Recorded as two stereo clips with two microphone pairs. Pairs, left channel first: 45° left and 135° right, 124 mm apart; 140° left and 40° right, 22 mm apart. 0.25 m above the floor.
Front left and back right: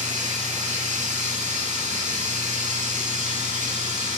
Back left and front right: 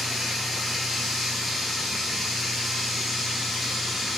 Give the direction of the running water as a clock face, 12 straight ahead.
5 o'clock.